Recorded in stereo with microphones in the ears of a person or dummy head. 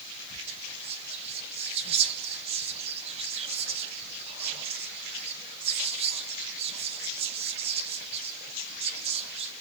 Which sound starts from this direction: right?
Whispering, at 0.5 s.